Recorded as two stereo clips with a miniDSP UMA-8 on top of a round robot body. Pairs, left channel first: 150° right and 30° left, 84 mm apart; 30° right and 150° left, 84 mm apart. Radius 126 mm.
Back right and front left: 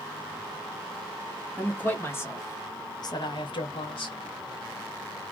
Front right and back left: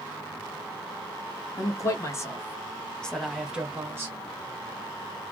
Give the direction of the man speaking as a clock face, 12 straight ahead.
3 o'clock.